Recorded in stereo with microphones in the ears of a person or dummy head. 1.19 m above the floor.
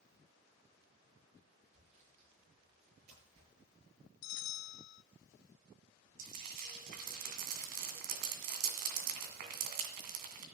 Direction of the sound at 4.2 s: 60° left (ahead or behind).